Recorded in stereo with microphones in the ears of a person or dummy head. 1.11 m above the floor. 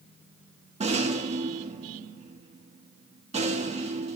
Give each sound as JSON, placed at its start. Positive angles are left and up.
{"t": 0.8, "sound": "a rattle", "side_deg": -35, "distance_m": 1.5}